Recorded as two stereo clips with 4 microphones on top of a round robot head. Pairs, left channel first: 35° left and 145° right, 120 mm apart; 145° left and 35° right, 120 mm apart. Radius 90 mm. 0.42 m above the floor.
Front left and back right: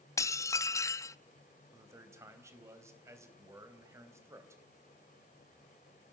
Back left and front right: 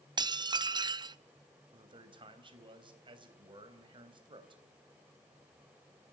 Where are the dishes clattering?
15° right, 0.5 m.